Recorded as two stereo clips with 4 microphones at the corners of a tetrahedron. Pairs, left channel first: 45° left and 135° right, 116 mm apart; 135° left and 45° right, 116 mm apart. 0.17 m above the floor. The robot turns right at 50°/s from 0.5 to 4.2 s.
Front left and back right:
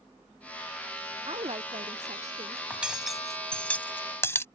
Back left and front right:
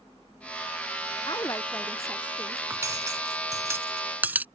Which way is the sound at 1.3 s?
175° right.